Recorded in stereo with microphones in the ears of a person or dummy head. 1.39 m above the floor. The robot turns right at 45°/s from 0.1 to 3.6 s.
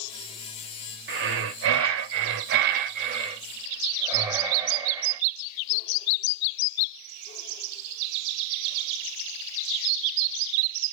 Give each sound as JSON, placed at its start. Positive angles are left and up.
{"t": 1.1, "sound": "breathing", "azimuth_deg": -130, "distance_m": 0.6}